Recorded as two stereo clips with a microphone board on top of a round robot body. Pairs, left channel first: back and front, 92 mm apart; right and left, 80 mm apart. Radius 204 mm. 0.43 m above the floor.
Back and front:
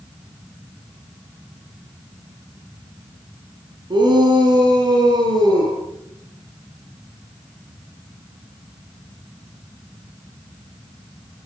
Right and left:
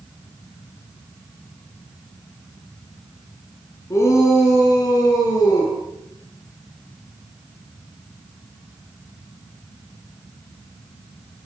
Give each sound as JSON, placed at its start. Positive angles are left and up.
{"t": 3.9, "sound": "a shout", "azimuth_deg": -35, "distance_m": 6.5}